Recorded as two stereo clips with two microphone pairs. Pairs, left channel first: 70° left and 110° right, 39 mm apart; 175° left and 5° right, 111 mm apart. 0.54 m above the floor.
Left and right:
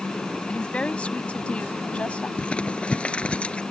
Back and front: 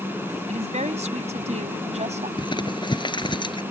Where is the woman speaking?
10° left.